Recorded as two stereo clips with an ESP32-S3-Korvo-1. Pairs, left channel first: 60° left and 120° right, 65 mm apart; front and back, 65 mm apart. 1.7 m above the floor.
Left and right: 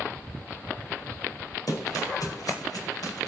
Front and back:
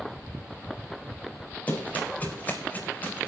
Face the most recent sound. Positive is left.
turn(degrees=60)